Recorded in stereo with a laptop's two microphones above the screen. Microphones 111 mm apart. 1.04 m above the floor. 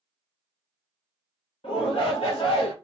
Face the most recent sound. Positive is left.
turn(degrees=60)  # may be behind; listen again after turning